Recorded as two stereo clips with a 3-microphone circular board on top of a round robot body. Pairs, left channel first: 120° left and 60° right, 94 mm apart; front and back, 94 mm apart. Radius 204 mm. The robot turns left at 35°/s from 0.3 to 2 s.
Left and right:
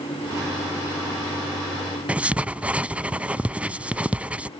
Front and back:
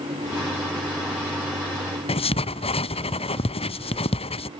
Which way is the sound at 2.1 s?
15° left.